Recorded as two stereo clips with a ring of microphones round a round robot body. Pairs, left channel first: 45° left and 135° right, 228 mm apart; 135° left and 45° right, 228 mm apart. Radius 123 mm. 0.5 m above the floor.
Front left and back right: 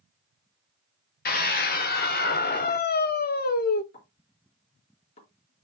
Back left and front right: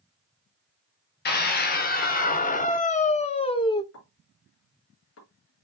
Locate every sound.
1.2 s a scream: 90° left, 2 m; by 3.8 s 70° left, 1.1 m
3.9 s a pop: 105° left, 4.5 m